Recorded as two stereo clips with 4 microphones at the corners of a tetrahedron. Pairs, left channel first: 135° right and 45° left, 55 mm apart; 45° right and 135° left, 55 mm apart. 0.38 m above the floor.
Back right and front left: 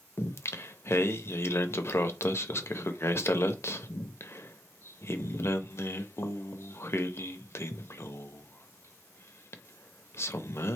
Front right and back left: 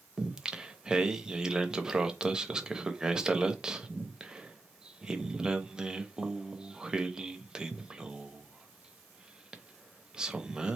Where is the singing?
150° right, 0.6 m.